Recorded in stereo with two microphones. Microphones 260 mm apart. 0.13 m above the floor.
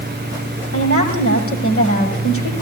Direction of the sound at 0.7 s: 55° left (ahead or behind).